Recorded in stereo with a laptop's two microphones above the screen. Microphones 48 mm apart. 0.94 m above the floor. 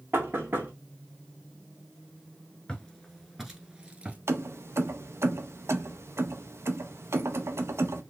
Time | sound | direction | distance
0.1 | knocking | 55° right (ahead or behind) | 1.1 m
2.7 | footsteps | 15° left (ahead or behind) | 0.9 m
4.3 | keys jangling | 65° right (ahead or behind) | 0.5 m